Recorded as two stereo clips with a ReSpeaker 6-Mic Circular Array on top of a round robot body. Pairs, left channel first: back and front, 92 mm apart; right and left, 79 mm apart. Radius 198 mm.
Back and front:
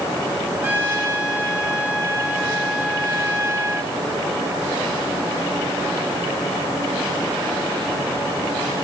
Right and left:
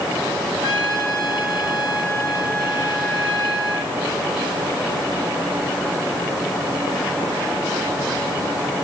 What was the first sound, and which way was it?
A trumpet, 70° right.